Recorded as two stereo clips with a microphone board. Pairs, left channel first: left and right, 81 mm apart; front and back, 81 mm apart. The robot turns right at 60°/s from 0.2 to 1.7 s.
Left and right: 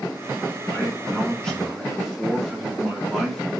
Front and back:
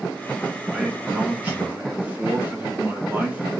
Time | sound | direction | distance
0.7 | a man speaking | 115° left | 0.9 m